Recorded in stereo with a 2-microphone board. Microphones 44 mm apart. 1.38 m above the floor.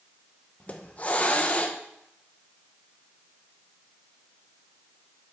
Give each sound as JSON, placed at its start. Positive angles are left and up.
{"t": 0.6, "sound": "a hiss", "side_deg": 30, "distance_m": 0.9}